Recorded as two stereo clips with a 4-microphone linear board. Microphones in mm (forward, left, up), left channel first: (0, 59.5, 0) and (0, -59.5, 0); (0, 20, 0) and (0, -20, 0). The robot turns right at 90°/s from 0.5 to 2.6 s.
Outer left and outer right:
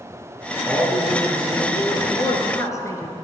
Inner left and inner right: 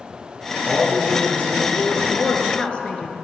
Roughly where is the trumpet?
I don't hear a trumpet.